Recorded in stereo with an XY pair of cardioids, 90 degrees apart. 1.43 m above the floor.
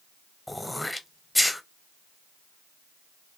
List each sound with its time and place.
0.5 s throat clearing: 15° left, 0.7 m